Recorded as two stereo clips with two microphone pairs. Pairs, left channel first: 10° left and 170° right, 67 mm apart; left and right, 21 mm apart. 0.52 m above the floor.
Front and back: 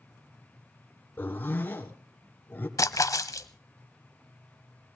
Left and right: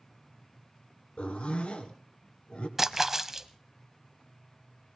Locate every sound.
1.2 s a zipper: 70° left, 2 m
2.8 s a splash: 20° right, 0.8 m